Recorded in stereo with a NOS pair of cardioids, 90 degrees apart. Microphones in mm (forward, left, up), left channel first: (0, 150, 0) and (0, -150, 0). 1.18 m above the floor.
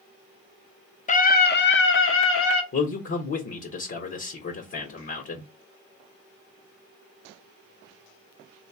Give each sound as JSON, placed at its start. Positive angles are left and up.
{"t": 1.1, "sound": "a scream", "azimuth_deg": 25, "distance_m": 0.9}
{"t": 2.7, "sound": "a man speaking", "azimuth_deg": 45, "distance_m": 1.4}